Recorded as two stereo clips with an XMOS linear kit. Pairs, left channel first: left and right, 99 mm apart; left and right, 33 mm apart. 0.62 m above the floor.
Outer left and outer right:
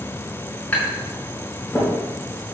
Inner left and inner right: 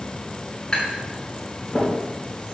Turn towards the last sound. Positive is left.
turn(degrees=15)  # may be behind; listen again after turning